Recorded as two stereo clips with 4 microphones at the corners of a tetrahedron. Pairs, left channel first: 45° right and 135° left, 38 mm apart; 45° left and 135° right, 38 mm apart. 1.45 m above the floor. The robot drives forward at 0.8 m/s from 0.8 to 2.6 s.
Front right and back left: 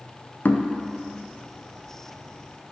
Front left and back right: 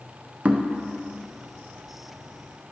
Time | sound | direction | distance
0.5 | knocking | 80° right | 0.7 m